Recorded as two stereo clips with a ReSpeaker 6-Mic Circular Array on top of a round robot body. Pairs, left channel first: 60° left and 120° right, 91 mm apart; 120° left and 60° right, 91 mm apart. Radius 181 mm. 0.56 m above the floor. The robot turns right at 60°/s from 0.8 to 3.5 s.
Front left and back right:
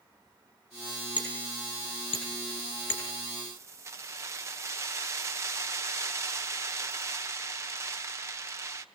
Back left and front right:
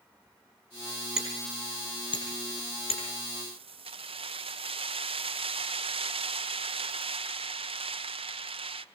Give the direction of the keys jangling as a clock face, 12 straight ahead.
2 o'clock.